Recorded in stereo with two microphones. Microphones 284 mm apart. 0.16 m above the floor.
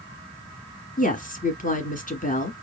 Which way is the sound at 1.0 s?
30° left (ahead or behind).